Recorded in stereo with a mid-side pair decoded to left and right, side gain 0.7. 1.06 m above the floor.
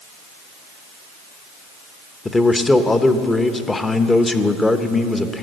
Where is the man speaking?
15° left, 0.9 m.